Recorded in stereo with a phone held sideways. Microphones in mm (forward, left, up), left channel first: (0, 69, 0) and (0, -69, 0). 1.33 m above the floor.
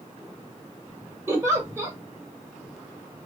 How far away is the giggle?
About 1.5 m.